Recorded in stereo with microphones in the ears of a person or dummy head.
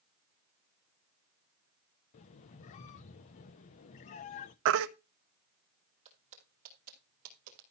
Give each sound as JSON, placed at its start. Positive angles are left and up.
{"t": 2.1, "sound": "a squeak", "side_deg": 35, "distance_m": 0.6}
{"t": 4.7, "sound": "a baby crying", "side_deg": -70, "distance_m": 1.0}
{"t": 6.0, "sound": "footsteps", "side_deg": -35, "distance_m": 4.0}